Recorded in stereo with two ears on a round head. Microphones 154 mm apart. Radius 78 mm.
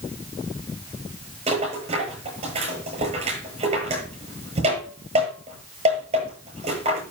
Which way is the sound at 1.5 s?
40° right (ahead or behind).